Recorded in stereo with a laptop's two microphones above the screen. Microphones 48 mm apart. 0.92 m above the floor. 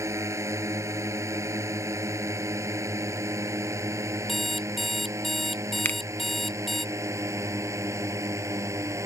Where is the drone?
80° right; by 9.1 s 85° right.